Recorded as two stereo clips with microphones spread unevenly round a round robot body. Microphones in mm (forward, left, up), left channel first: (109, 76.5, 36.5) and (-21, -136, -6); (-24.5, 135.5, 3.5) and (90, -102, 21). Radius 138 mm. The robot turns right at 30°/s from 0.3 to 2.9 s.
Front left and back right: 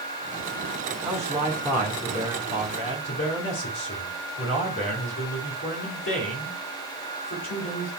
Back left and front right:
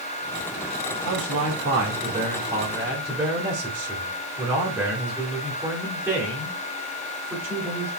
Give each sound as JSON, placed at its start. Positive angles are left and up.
{"t": 1.1, "sound": "a man speaking", "azimuth_deg": -40, "distance_m": 2.5}